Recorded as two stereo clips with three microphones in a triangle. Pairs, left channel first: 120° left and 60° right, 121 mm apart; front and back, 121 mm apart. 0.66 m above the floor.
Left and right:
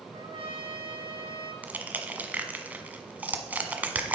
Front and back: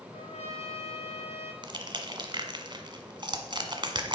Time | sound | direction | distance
0.1 | a trumpet | 25° right | 2.5 m
1.6 | crushing | 135° right | 1.2 m